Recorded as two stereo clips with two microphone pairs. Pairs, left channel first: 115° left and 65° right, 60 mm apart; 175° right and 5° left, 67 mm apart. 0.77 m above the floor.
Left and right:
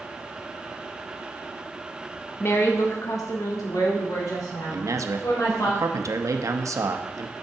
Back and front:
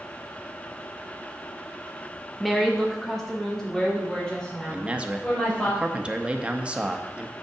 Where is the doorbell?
No doorbell in this recording.